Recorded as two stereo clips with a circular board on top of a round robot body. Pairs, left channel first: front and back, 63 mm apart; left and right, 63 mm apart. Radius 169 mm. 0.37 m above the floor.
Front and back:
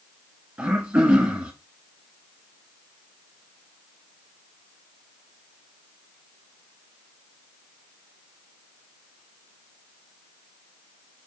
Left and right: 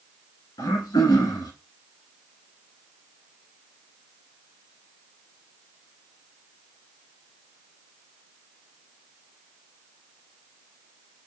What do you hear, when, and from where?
0.6 s throat clearing: 105° left, 1.4 m